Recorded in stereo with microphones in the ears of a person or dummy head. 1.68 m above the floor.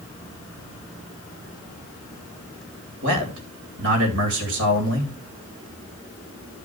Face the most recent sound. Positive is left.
turn(degrees=-70)  # may be behind; listen again after turning